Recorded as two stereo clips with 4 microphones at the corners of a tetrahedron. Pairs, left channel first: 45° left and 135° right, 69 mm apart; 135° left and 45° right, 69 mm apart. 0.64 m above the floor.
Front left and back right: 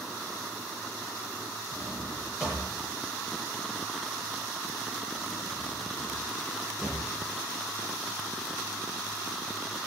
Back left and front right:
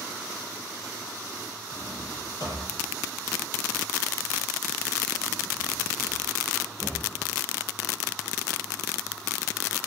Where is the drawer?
150° left, 9.5 m.